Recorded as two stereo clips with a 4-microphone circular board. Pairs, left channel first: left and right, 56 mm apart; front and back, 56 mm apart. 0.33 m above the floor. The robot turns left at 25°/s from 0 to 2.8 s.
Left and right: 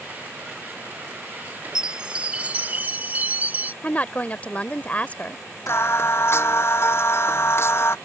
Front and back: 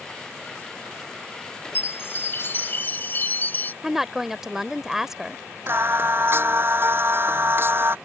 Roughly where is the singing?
Behind left.